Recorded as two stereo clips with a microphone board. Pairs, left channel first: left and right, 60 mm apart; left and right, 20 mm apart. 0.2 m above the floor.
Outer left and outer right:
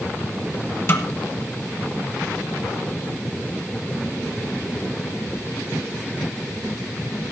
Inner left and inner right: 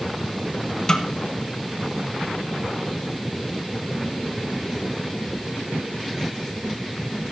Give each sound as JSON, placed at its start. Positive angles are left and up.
{"t": 0.9, "sound": "a snare drum", "side_deg": 45, "distance_m": 1.8}